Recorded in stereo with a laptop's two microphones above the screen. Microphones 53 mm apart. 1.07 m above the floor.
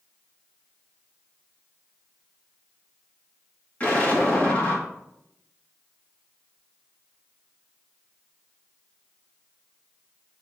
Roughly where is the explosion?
Left.